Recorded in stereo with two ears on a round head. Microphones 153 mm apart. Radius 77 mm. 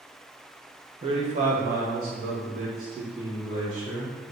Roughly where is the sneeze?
No sneeze in this recording.